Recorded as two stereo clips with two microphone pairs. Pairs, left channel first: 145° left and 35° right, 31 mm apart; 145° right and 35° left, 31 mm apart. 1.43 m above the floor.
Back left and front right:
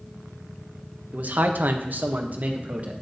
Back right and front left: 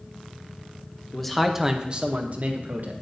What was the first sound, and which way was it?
A man speaking, 65° right.